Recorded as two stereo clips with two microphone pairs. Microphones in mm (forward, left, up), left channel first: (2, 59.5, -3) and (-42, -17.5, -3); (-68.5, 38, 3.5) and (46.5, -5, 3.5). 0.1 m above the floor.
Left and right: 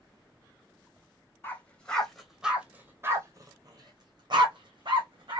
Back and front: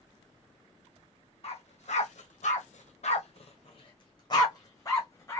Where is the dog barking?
130° left, 1.2 m; by 5.4 s 130° right, 1.8 m.